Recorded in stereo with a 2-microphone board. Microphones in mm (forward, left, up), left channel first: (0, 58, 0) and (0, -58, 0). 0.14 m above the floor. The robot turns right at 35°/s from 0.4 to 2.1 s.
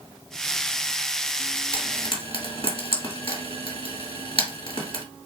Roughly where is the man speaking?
No man speaking in this recording.